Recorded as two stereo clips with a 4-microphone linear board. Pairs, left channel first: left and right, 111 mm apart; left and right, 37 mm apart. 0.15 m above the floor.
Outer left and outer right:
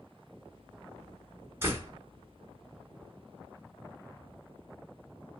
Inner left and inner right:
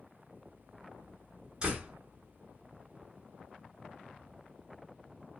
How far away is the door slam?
About 1.2 m.